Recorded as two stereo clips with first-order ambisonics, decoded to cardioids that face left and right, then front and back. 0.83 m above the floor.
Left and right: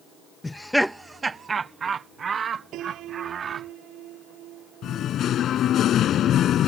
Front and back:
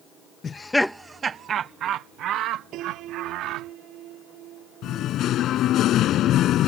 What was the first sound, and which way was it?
Laughter, 20° left.